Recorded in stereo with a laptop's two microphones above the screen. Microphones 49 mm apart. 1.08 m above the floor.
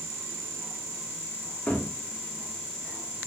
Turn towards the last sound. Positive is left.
turn(degrees=20)  # may be behind; listen again after turning